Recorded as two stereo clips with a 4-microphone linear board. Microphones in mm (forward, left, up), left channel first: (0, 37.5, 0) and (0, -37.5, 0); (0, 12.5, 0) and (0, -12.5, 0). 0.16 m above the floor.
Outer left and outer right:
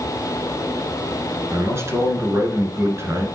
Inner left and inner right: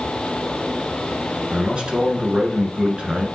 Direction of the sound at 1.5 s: 35° right (ahead or behind).